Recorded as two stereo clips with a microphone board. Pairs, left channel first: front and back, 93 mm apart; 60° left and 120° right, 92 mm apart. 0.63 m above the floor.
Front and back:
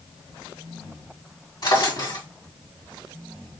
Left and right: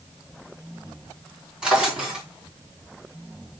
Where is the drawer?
40° right, 3.5 m.